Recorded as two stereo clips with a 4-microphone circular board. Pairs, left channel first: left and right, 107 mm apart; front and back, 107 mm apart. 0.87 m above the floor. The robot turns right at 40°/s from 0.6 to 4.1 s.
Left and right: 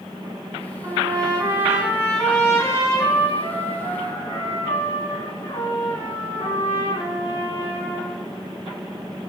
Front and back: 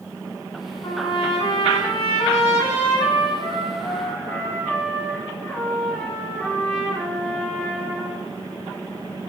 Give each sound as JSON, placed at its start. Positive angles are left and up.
{"t": 0.8, "sound": "a trumpet", "azimuth_deg": -45, "distance_m": 8.0}